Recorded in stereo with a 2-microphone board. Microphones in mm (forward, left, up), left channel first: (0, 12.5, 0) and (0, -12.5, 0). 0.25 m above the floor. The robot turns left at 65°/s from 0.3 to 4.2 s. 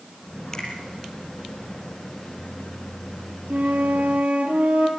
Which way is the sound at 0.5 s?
20° left (ahead or behind).